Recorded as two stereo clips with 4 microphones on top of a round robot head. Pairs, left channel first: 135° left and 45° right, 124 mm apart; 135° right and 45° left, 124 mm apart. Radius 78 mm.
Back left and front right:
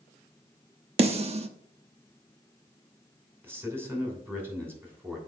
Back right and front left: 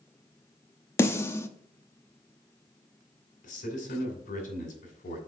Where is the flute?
I don't hear a flute.